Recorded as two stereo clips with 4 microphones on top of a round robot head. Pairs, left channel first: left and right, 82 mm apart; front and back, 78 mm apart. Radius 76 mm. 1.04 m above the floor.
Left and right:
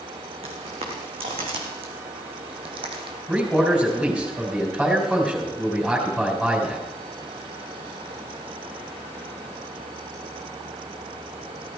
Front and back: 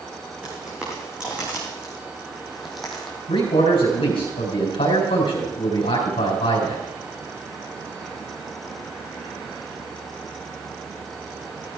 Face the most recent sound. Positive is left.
turn(degrees=-5)